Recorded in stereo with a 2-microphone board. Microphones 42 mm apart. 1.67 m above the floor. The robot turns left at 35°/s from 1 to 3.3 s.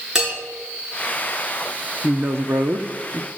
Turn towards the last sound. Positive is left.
turn(degrees=-135)